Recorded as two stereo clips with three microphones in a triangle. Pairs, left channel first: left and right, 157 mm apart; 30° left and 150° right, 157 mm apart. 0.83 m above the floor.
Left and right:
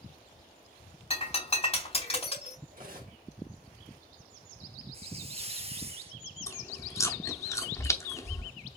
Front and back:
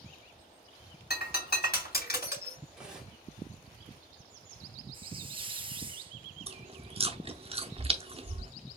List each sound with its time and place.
1.1 s breaking glass: 40° left, 3.5 m
2.7 s cutlery clinking: 65° right, 1.5 m
4.9 s a hiss: 110° right, 0.6 m
6.5 s chewing: 160° left, 0.7 m